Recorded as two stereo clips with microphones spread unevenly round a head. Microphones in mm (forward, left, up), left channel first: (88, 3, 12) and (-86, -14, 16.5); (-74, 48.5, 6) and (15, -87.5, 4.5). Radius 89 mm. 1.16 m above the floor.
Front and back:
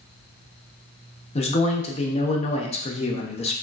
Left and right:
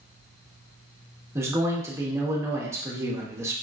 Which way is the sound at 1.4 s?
5° left.